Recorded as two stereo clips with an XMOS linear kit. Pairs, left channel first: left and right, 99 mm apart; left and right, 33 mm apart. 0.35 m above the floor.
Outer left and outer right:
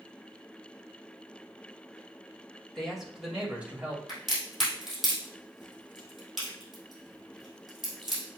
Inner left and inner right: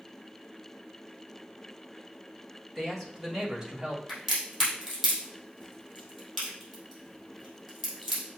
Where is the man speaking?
5° left (ahead or behind), 1.7 m; by 4.0 s 25° right (ahead or behind), 1.8 m.